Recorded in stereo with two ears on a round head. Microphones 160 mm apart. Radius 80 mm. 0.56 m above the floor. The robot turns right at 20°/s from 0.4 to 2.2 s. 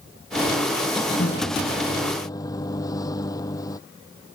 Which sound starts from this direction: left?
A microwave, at 1.2 s.